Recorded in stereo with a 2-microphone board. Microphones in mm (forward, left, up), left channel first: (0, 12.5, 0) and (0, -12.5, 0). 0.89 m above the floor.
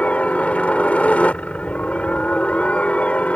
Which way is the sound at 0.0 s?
65° left (ahead or behind).